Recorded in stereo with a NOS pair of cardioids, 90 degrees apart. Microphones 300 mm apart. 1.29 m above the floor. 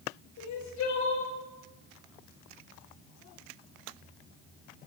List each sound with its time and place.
0.4 s crying: 70° left, 6.5 m